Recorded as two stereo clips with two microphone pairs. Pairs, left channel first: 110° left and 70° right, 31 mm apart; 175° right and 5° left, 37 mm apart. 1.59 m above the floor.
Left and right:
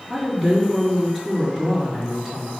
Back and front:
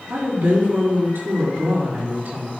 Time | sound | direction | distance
0.1 | a woman speaking | 15° left | 4.5 m